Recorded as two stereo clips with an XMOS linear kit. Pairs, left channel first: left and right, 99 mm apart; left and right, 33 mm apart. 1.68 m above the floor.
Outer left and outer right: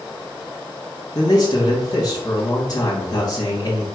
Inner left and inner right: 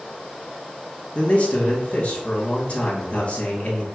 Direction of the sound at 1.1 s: 40° left (ahead or behind).